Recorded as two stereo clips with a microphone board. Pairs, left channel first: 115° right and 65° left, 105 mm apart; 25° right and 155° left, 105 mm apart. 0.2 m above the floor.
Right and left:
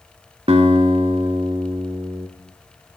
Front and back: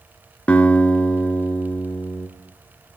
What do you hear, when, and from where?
0.5 s a guitar: 55° left, 0.6 m